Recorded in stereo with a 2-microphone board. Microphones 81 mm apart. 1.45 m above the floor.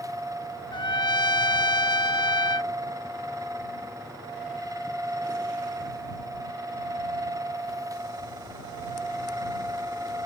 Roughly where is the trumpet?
Left.